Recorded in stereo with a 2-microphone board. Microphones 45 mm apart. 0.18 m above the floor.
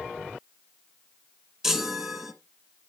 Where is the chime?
10° right (ahead or behind), 1.1 m.